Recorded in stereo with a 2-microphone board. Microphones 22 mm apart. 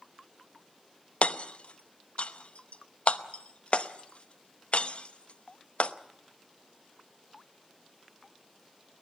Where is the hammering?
60° left (ahead or behind), 0.8 m.